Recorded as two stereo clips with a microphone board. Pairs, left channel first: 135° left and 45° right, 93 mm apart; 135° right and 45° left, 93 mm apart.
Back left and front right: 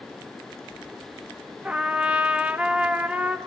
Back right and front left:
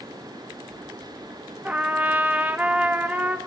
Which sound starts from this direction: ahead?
A trumpet, at 1.6 s.